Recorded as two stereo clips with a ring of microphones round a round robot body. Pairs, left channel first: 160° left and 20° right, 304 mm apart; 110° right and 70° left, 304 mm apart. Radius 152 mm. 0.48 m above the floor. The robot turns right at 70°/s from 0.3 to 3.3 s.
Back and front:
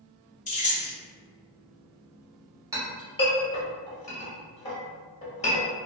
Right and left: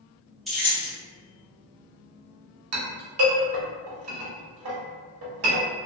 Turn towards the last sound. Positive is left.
turn(degrees=95)